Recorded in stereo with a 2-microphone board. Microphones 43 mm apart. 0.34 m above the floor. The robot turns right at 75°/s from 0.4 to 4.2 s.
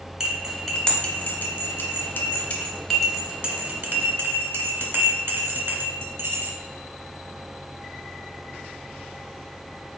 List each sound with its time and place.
0.2 s cutlery clinking: 5° right (ahead or behind), 0.9 m; by 6.5 s 60° right (ahead or behind), 0.9 m